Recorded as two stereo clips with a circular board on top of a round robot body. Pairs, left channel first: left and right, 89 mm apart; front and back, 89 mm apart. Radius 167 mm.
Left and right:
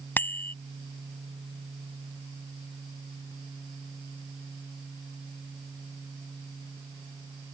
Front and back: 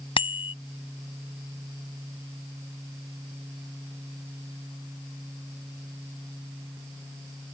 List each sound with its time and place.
0.2 s a bicycle bell: 20° left